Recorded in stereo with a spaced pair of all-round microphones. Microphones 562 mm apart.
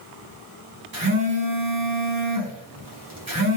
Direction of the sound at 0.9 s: 35° right (ahead or behind).